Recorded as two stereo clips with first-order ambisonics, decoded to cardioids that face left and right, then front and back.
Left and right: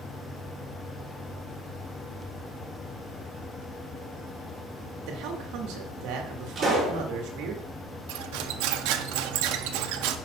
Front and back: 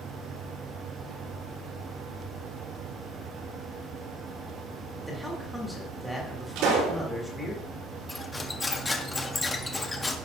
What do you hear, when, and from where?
5.1 s a man speaking: 90° right, 1.6 m
6.5 s a pop: 160° right, 5 m
8.1 s cutlery clinking: 80° right, 0.6 m